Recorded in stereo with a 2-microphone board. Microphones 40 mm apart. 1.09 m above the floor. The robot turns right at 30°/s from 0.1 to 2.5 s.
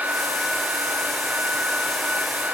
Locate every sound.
Only background noise.